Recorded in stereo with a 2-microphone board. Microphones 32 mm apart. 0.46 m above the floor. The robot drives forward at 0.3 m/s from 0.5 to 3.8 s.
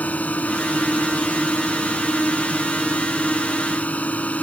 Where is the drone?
50° left (ahead or behind).